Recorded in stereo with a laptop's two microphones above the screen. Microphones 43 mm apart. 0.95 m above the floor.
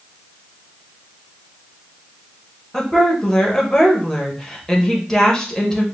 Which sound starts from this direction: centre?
A woman speaking, at 2.7 s.